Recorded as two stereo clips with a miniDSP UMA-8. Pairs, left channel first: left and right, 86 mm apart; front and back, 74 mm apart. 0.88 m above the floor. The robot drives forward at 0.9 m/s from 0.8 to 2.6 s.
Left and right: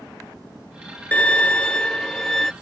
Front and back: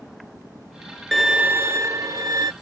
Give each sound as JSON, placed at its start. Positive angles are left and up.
{"t": 1.1, "sound": "a violin", "azimuth_deg": 75}